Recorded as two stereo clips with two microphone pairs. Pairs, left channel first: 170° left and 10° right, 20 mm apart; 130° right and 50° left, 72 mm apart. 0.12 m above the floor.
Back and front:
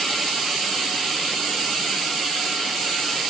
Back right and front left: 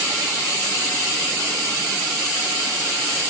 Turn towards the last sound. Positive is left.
No sound to turn to.